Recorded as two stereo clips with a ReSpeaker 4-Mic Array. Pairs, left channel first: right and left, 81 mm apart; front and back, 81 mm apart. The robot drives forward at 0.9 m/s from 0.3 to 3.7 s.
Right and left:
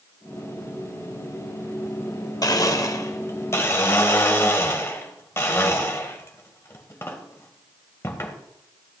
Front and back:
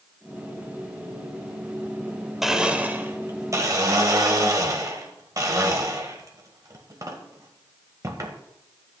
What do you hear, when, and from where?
2.4 s a blender: 95° right, 1.2 m; by 8.4 s 145° right, 1.8 m